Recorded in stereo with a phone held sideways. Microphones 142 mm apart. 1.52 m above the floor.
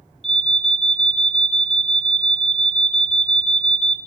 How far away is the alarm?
About 1.1 m.